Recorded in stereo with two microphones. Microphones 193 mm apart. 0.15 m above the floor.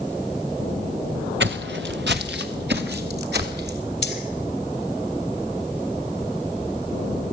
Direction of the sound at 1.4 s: 80° right.